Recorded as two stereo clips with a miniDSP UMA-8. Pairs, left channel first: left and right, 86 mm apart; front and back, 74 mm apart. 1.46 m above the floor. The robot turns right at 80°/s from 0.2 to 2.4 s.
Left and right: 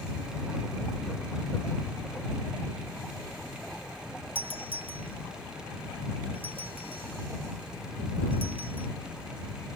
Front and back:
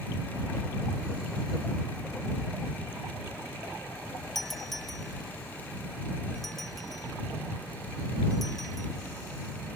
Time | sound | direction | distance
4.3 | a doorbell | 90° left | ?